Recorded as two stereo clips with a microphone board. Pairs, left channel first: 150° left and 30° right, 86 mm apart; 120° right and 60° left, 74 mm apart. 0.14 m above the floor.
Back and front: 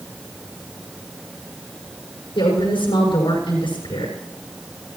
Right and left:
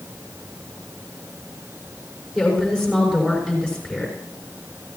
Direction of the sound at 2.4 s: 145° left.